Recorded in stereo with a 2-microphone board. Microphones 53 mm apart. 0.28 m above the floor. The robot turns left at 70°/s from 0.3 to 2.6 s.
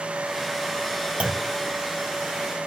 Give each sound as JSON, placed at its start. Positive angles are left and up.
{"t": 1.2, "sound": "a clunk", "side_deg": -25, "distance_m": 0.6}